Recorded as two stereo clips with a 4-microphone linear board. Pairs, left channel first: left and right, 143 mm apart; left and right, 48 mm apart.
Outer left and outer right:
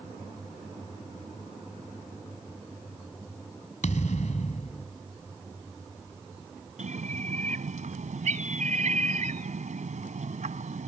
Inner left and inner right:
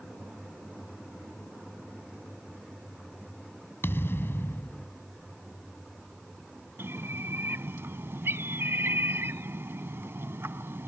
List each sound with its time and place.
3.8 s a thud: 60° left (ahead or behind)
6.8 s a bird: 60° right (ahead or behind)